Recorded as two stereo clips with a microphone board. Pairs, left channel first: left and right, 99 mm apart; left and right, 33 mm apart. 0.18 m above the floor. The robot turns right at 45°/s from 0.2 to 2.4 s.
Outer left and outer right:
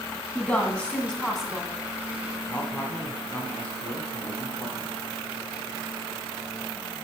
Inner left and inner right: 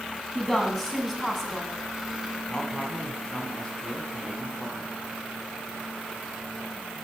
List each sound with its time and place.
0.3 s a woman speaking: 15° left (ahead or behind), 1.5 m; by 1.7 s 5° right (ahead or behind), 1.5 m
2.5 s a man speaking: 20° left (ahead or behind), 1.4 m